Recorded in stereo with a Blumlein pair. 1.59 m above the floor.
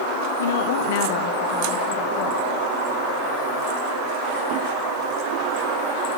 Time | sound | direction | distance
0.4 | a woman speaking | 70° left | 1.1 m